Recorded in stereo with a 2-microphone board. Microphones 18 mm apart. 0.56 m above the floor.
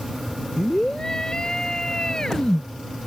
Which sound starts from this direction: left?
A scream, at 0.6 s.